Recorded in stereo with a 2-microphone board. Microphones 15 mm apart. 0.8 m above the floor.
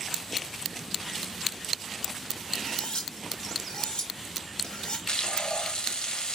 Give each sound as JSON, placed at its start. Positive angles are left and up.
{"t": 2.5, "sound": "cutlery clinking", "side_deg": 85, "distance_m": 1.9}
{"t": 5.1, "sound": "frying", "side_deg": 70, "distance_m": 1.3}